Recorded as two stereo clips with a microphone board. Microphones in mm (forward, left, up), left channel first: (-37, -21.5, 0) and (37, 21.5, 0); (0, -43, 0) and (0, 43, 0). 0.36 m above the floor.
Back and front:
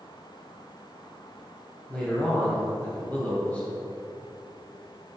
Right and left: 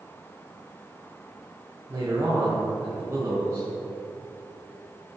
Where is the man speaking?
140° left, 2.5 m.